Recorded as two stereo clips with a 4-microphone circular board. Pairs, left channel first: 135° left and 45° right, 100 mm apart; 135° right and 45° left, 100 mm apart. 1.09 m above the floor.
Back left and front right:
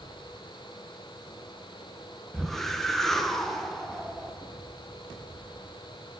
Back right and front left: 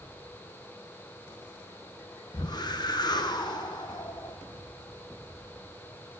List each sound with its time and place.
2.3 s a whoosh: 140° right, 0.7 m